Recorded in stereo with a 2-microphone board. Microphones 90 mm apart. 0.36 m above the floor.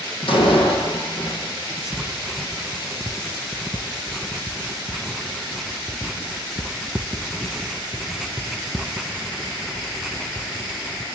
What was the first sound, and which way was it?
A door slam, 80° left.